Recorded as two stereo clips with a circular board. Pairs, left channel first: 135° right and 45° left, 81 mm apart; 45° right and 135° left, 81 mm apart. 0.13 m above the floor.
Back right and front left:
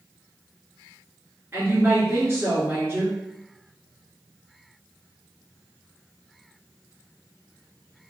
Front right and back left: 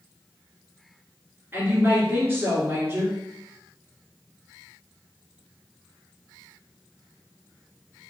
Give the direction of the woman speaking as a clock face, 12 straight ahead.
9 o'clock.